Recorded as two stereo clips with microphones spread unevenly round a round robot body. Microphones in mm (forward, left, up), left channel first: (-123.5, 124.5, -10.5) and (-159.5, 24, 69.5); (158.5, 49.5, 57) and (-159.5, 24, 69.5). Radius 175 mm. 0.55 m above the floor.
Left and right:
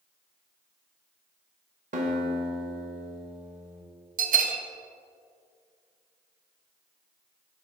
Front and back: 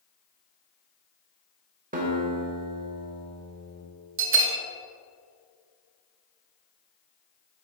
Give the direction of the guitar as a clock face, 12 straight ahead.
4 o'clock.